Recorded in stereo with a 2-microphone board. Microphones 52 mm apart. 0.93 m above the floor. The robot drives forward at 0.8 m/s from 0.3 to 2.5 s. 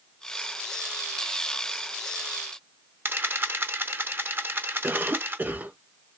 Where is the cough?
40° right (ahead or behind), 1.1 m.